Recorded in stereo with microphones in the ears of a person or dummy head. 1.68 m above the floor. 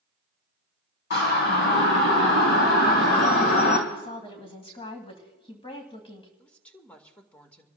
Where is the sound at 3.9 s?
30° left (ahead or behind), 2 m.